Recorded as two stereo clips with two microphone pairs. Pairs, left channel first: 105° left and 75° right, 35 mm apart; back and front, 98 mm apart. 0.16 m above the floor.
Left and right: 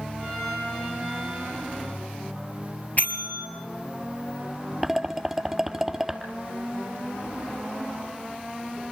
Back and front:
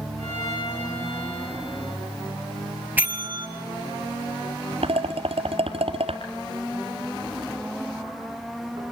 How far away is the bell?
About 3 m.